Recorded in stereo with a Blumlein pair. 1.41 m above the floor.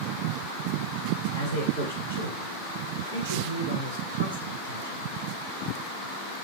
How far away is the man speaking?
About 4.5 m.